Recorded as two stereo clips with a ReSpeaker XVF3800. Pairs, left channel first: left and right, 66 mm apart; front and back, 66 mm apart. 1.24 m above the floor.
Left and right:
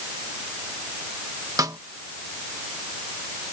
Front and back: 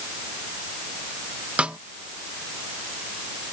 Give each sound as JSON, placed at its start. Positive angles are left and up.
{"t": 1.6, "sound": "a snare drum", "azimuth_deg": -110}